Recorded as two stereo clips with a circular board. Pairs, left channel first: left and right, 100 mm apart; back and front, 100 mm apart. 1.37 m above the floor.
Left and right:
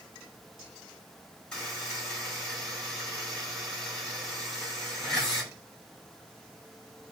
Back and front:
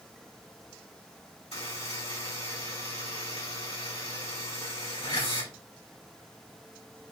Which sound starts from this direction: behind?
A buzzer, at 1.5 s.